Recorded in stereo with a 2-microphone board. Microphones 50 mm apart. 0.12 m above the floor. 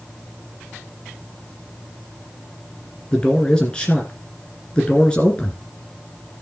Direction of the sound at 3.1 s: 20° left (ahead or behind).